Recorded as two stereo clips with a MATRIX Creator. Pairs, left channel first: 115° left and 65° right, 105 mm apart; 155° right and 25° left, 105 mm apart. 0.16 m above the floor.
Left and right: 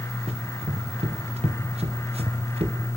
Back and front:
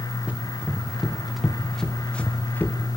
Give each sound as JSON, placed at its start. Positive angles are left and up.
{"t": 0.3, "sound": "running footsteps", "azimuth_deg": -55, "distance_m": 3.0}